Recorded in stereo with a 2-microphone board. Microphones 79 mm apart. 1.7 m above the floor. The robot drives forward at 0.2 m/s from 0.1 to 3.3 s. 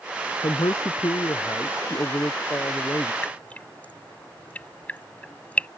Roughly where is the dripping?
Centre.